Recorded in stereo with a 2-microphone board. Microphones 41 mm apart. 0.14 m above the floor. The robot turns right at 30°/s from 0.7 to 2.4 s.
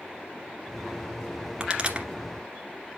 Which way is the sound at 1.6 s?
20° right (ahead or behind).